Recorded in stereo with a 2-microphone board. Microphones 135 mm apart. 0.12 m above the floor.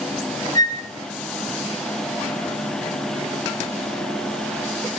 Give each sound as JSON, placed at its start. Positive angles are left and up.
{"t": 0.6, "sound": "a flute", "side_deg": 30, "distance_m": 1.7}